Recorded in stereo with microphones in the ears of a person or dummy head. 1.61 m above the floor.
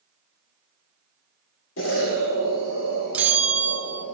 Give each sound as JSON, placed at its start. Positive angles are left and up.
{"t": 1.8, "sound": "an explosion", "side_deg": 75, "distance_m": 3.0}
{"t": 3.1, "sound": "a bell", "side_deg": -5, "distance_m": 1.0}